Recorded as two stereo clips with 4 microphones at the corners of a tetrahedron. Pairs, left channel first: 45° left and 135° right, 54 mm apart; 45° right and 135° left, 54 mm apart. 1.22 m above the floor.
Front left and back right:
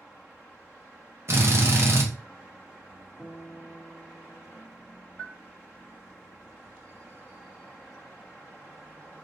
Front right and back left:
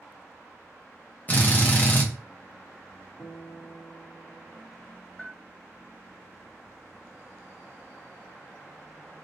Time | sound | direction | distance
1.3 | a drill | 100° right | 0.6 m
3.2 | a guitar | 35° right | 1.0 m
5.2 | a bell | 5° right | 1.0 m